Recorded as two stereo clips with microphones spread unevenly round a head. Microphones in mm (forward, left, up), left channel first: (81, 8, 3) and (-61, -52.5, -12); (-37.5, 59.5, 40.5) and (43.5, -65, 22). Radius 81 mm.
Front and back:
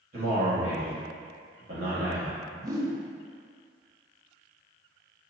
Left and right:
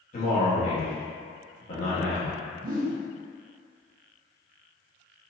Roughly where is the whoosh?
Right.